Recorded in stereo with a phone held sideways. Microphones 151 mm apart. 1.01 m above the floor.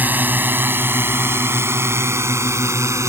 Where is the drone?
10° right (ahead or behind); by 3.1 s 20° right (ahead or behind).